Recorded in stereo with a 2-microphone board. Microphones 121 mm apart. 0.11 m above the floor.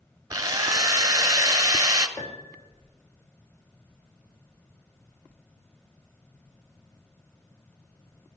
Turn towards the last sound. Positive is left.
turn(degrees=25)  # may be behind; listen again after turning